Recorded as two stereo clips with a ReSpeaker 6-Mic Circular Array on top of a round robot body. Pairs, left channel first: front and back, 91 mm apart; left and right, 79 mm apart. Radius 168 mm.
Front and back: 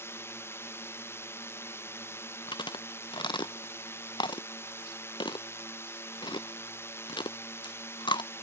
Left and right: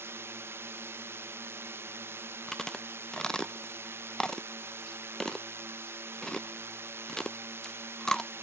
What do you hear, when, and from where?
0.0 s a drone: 50° right
2.5 s chewing: 10° left